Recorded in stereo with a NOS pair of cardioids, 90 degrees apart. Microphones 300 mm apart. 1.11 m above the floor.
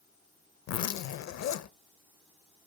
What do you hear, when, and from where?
0.7 s a zipper: 60° left, 0.8 m